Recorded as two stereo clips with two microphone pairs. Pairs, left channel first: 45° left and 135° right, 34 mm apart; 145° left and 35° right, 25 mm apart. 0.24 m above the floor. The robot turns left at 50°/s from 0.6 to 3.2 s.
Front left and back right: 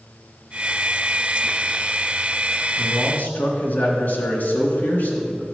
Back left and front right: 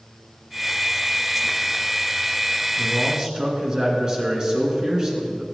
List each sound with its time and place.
2.8 s a man speaking: 45° left, 3 m; by 5.4 s 25° left, 3 m